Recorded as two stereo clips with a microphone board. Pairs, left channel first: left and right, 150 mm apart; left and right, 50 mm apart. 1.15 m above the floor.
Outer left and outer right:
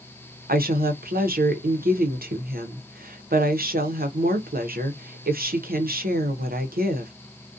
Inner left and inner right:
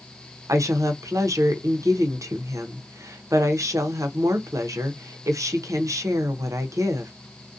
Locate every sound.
0.5 s a woman speaking: 85° right, 0.6 m